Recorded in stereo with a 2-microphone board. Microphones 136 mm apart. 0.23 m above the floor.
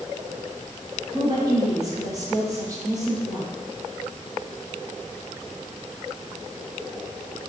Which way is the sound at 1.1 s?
30° right (ahead or behind).